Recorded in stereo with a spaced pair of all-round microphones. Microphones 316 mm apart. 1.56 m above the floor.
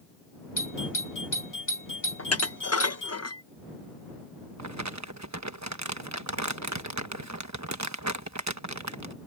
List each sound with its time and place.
0.6 s a doorbell: 80° left
2.2 s dishes clattering: 50° left (ahead or behind)
4.6 s crumpling: 60° right (ahead or behind)